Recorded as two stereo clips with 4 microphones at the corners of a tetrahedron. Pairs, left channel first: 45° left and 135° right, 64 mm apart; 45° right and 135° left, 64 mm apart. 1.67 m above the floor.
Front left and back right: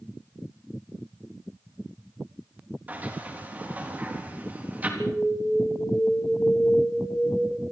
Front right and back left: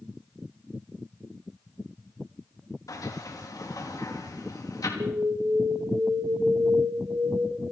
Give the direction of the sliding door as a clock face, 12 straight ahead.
2 o'clock.